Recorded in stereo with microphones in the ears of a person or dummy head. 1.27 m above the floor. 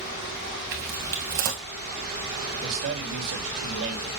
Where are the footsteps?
35° right (ahead or behind), 1.7 m.